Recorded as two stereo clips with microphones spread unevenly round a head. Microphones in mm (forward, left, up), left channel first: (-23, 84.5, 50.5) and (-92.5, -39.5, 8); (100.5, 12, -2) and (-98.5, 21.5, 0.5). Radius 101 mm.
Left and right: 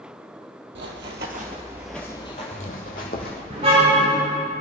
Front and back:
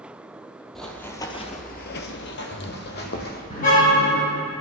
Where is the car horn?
55° right, 4.5 m.